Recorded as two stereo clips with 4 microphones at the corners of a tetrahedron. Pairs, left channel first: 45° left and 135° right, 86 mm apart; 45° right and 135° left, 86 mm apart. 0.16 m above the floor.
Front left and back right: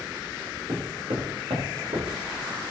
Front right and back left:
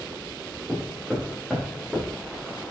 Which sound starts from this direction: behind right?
Footsteps, at 0.7 s.